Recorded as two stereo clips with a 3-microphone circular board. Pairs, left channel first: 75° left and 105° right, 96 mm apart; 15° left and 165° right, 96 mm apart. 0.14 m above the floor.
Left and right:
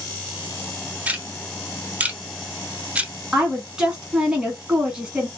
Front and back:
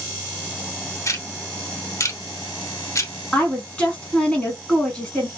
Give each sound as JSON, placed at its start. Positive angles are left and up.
{"t": 1.1, "sound": "ticking", "azimuth_deg": -35, "distance_m": 0.7}
{"t": 3.3, "sound": "a woman speaking", "azimuth_deg": -40, "distance_m": 1.1}